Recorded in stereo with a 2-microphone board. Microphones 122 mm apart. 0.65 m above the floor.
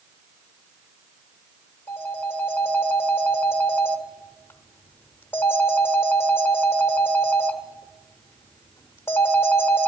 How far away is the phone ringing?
About 0.9 m.